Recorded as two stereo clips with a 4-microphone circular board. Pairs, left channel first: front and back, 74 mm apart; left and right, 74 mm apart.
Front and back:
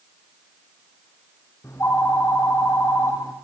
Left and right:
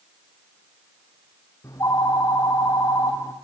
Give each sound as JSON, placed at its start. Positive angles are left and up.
{"t": 1.6, "sound": "a phone ringing", "azimuth_deg": 50, "distance_m": 4.5}